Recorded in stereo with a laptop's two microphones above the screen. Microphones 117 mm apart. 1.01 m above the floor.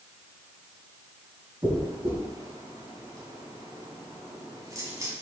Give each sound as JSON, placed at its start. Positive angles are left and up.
{"t": 1.6, "sound": "a dropped coin", "side_deg": -30, "distance_m": 2.5}